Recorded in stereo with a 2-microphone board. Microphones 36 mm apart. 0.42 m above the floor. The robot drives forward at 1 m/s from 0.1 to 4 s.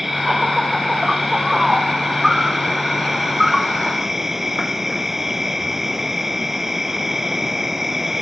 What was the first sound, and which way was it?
An insect, 5° right (ahead or behind).